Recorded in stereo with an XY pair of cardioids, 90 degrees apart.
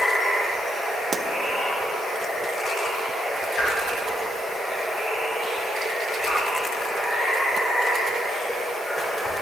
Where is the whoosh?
60° left, 3 m.